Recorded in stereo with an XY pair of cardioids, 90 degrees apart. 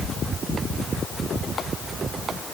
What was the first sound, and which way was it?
Only background noise.